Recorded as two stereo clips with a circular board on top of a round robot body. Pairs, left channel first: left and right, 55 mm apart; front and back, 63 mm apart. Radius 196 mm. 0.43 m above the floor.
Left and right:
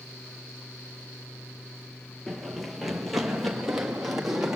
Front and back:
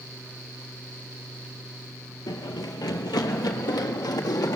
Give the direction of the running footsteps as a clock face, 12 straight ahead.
12 o'clock.